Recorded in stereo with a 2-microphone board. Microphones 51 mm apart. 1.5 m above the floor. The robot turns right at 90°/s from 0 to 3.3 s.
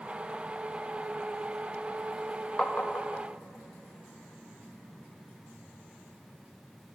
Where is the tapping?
20° left (ahead or behind), 0.5 m; by 3.2 s 65° left (ahead or behind), 0.5 m.